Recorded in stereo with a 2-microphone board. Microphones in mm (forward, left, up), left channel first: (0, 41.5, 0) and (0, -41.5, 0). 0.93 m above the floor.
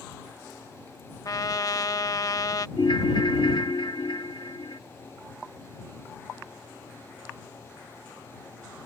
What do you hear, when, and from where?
1.2 s a trumpet: 45° left (ahead or behind)
2.8 s a ringtone: 60° left (ahead or behind)